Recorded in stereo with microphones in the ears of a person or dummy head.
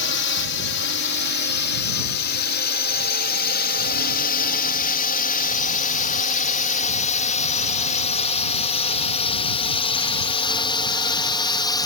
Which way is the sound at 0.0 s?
60° left (ahead or behind).